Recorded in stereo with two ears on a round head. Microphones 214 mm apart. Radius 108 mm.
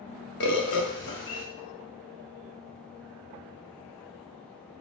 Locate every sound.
0.4 s a bird: 50° left (ahead or behind), 0.5 m